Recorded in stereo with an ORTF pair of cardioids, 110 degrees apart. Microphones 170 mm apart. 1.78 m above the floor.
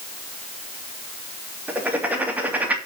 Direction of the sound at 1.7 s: 10° right.